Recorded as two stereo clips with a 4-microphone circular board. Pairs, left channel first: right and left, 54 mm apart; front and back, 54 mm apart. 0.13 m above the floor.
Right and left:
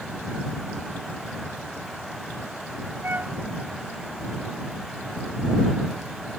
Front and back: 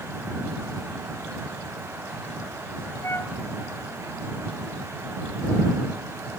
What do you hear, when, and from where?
3.0 s a flute: 40° left